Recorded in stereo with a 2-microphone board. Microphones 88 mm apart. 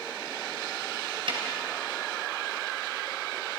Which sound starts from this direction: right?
A snare drum, at 1.3 s.